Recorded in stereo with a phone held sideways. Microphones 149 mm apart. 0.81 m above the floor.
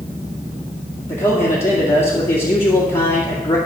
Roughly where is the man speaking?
Left.